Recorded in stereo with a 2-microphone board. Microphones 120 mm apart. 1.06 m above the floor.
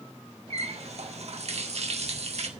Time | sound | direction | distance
0.5 | a running tap | 60° right (ahead or behind) | 1.4 m